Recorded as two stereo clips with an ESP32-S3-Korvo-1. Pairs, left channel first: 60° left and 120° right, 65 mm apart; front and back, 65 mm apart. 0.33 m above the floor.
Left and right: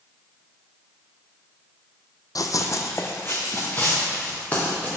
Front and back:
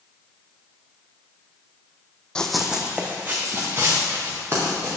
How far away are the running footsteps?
About 0.7 m.